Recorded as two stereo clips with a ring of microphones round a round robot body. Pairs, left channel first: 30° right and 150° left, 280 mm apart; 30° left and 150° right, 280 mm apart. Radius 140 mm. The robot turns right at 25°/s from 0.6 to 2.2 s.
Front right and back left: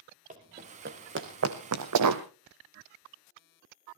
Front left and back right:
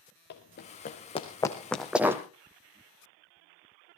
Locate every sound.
0.3 s running footsteps: 85° left, 3 m; by 2.2 s 130° left, 1.3 m